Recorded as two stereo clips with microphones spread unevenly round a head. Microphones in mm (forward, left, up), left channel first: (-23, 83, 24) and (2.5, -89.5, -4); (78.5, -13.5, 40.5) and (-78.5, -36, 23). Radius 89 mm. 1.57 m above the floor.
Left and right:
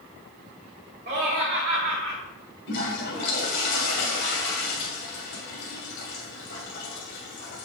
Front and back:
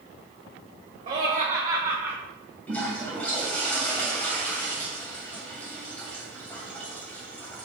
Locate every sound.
1.1 s laughter: 120° right, 2 m; by 2.2 s 95° right, 1.6 m
2.7 s a toilet flushing: 90° left, 2.5 m